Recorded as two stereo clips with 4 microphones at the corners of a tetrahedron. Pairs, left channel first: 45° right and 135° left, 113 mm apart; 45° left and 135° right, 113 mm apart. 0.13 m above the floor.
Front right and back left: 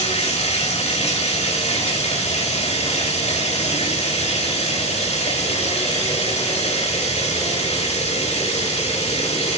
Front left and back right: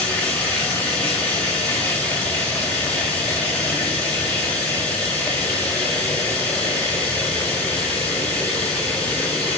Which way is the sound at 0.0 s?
30° right.